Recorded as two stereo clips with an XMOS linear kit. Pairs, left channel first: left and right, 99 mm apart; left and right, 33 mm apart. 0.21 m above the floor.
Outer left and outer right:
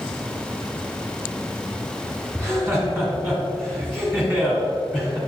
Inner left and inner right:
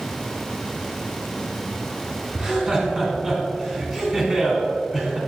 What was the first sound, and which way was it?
Laughter, centre (ahead or behind).